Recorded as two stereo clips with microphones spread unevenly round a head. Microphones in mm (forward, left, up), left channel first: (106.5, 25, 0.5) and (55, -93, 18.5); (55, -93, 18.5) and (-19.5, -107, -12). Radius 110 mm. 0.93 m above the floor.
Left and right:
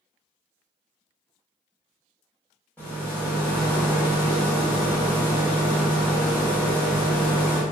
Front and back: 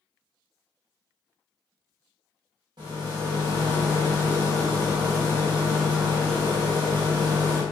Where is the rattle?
155° left, 0.6 m.